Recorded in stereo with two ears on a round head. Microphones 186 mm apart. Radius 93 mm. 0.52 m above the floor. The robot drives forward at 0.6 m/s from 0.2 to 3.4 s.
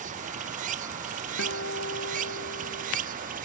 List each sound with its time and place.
0.0 s running water: 40° right (ahead or behind)
1.4 s a guitar: 60° left (ahead or behind)